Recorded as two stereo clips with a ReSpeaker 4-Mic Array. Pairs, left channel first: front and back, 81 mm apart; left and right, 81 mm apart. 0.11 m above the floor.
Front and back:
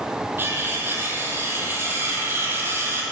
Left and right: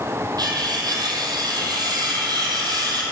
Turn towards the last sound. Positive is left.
turn(degrees=-120)